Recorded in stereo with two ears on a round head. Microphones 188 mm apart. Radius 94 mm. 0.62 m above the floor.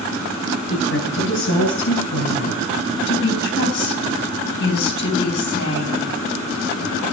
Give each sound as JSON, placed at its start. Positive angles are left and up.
{"t": 0.7, "sound": "a woman speaking", "side_deg": 60, "distance_m": 7.0}
{"t": 3.1, "sound": "a woman speaking", "side_deg": 60, "distance_m": 4.0}